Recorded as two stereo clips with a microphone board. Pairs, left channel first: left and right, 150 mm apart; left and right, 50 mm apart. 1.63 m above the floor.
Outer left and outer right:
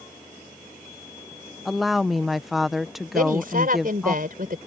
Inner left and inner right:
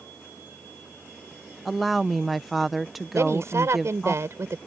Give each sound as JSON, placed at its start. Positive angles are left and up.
{"t": 1.6, "sound": "a woman speaking", "side_deg": 0}
{"t": 3.1, "sound": "a woman speaking", "side_deg": -70}